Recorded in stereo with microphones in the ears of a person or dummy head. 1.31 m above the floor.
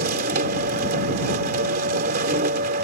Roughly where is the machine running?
Right.